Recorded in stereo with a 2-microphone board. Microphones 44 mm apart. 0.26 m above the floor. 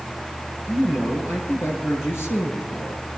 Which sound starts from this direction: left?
A man speaking, at 0.7 s.